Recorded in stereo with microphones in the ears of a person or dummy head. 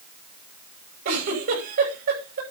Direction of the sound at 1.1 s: 65° right (ahead or behind).